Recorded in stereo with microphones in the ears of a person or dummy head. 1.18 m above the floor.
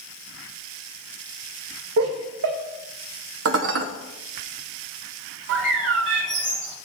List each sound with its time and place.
2.0 s laughter: 65° right (ahead or behind), 1.3 m
3.5 s dishes clattering: 70° right (ahead or behind), 1.0 m
5.5 s a bird: 65° right (ahead or behind), 1.9 m